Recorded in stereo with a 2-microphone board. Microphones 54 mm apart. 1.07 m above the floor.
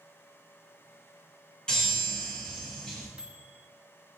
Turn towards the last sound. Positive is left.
turn(degrees=-15)  # may be behind; listen again after turning